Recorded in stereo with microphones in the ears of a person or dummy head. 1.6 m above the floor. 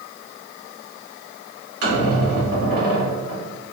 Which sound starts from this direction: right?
A squeak, at 1.8 s.